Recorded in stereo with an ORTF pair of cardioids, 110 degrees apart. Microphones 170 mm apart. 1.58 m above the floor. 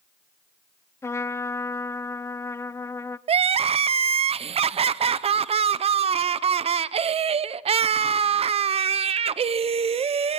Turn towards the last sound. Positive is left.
turn(degrees=-35)